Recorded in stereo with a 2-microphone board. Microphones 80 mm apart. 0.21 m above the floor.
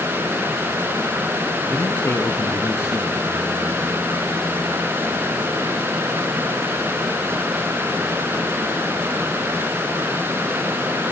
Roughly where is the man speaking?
Left.